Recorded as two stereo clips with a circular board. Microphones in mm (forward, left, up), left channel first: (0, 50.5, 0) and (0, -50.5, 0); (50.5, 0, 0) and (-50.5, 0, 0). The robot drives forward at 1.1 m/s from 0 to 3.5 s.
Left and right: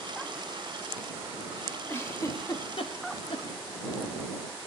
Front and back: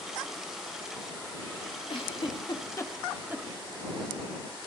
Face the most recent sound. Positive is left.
turn(degrees=120)